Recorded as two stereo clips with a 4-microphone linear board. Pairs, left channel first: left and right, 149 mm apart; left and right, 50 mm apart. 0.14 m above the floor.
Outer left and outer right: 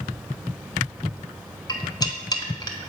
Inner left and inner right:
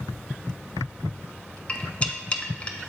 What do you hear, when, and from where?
1.7 s cutlery clinking: 30° left (ahead or behind), 0.7 m